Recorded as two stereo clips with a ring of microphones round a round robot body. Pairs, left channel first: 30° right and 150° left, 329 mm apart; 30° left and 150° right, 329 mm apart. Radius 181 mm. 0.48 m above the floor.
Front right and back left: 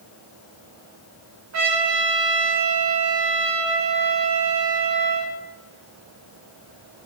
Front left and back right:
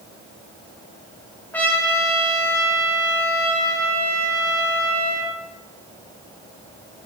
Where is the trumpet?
115° left, 1.6 m.